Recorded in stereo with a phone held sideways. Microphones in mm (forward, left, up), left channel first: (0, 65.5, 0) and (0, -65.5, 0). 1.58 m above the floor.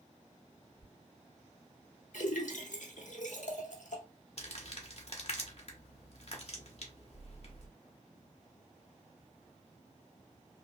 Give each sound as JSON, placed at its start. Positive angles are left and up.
{"t": 0.8, "sound": "a squeak", "side_deg": -30, "distance_m": 1.1}
{"t": 2.1, "sound": "a splash", "side_deg": 75, "distance_m": 0.8}
{"t": 4.4, "sound": "crumpling", "side_deg": 55, "distance_m": 0.9}